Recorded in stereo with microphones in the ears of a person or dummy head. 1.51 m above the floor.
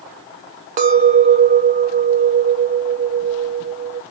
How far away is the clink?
About 0.6 m.